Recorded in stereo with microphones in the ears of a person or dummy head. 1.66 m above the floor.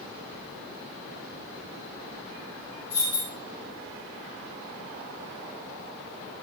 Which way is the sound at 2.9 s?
20° left (ahead or behind).